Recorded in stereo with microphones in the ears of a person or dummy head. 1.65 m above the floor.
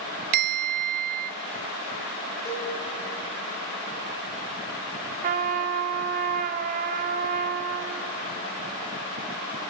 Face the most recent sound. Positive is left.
turn(degrees=-45)  # may be behind; listen again after turning